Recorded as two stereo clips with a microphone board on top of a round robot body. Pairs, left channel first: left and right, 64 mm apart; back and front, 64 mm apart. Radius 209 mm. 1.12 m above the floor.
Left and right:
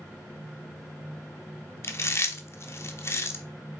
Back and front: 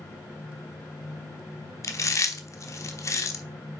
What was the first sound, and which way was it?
Chewing, 140° left.